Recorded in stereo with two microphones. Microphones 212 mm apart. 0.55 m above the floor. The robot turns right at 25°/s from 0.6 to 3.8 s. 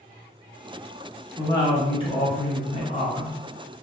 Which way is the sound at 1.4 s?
35° left.